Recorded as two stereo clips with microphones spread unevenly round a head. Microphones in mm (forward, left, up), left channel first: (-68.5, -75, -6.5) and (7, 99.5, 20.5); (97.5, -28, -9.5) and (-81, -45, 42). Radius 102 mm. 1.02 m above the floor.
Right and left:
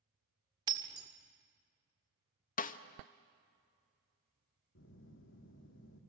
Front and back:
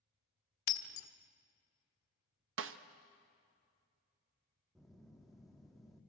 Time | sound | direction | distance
0.7 | breaking glass | 5° right | 1.6 m
2.6 | a snare drum | 155° right | 1.1 m
4.8 | a phone buzzing | 80° right | 1.9 m